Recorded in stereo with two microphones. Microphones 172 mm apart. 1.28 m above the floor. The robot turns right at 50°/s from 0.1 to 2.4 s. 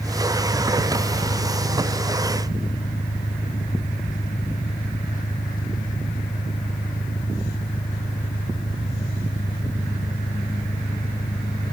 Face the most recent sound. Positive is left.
turn(degrees=130)